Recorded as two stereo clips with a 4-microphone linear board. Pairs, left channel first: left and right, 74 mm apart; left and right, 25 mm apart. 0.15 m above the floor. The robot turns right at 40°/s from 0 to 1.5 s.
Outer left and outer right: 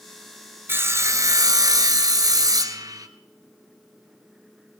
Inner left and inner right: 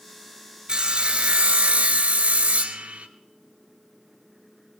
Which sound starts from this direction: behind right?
Sawing, at 0.7 s.